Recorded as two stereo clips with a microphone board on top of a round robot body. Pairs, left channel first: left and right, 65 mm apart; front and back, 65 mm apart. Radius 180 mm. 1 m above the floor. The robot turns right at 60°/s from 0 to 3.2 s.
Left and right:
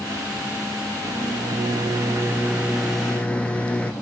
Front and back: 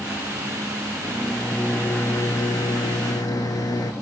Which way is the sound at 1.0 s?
115° right.